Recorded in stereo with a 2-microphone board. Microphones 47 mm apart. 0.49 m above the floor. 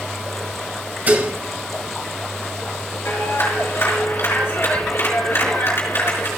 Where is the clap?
50° left (ahead or behind), 5 m.